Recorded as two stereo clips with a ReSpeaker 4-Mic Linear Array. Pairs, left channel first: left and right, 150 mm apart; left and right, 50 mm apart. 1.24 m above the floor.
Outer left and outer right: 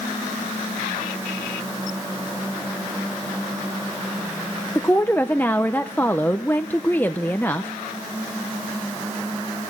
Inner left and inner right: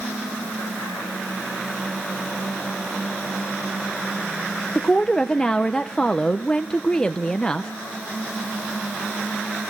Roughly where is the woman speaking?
Centre.